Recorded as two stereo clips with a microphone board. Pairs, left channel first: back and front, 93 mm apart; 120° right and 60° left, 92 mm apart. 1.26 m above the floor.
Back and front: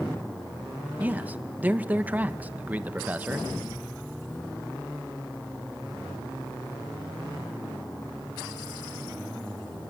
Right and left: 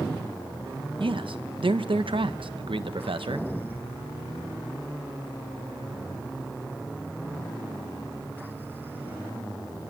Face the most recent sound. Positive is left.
turn(degrees=70)